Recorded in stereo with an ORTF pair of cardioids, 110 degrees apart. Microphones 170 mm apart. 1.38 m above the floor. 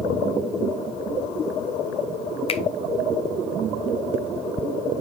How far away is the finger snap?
About 0.8 m.